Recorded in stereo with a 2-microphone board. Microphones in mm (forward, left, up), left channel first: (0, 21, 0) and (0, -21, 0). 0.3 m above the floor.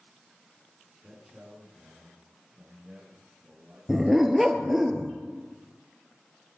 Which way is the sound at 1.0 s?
10° right (ahead or behind).